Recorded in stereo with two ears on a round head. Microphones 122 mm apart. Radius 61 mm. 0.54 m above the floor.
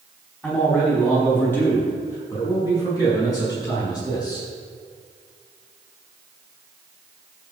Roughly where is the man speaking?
Centre.